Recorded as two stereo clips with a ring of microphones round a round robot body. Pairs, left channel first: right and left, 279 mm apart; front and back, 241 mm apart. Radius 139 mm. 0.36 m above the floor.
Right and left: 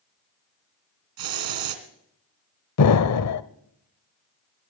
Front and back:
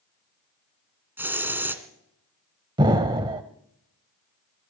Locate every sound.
1.2 s a hiss: 100° left, 2 m
2.8 s an explosion: 110° right, 0.8 m